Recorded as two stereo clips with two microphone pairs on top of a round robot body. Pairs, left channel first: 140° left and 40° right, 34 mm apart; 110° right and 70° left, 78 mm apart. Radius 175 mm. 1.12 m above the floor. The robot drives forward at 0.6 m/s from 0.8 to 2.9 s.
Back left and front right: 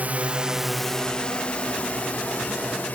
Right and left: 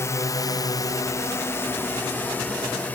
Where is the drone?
60° right; by 3.0 s straight behind.